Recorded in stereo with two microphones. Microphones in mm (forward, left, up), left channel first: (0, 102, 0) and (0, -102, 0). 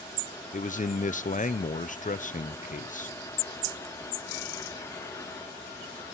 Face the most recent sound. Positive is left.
turn(degrees=40)  # may be behind; listen again after turning